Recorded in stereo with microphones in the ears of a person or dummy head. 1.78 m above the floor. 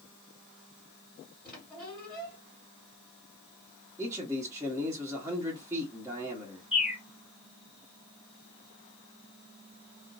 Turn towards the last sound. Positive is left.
turn(degrees=0)  # may be behind; listen again after turning